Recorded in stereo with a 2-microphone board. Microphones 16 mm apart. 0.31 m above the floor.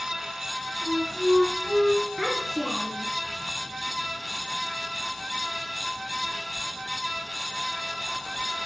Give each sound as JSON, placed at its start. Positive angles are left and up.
{"t": 0.8, "sound": "a flute", "side_deg": 30, "distance_m": 9.5}
{"t": 2.2, "sound": "a child speaking", "side_deg": 30, "distance_m": 4.0}